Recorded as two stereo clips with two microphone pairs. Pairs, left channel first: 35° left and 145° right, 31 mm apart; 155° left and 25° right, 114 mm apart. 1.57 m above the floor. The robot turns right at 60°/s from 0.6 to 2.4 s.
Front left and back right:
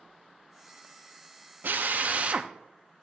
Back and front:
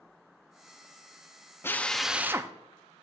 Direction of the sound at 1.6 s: 135° right.